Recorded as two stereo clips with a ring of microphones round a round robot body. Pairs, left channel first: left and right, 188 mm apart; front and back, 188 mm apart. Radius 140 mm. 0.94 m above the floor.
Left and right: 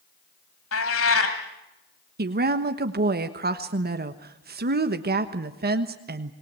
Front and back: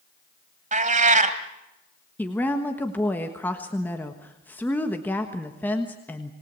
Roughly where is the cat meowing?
Behind left.